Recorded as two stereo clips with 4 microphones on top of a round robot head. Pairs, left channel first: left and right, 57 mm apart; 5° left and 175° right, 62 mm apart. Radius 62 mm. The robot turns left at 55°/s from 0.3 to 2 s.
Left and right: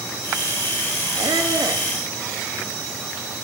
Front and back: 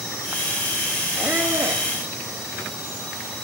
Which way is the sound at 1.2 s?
95° right.